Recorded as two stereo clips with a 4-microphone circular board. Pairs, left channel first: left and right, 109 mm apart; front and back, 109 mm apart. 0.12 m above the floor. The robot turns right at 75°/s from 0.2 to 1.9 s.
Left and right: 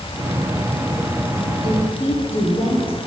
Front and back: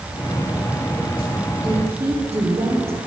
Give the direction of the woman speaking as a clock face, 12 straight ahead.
9 o'clock.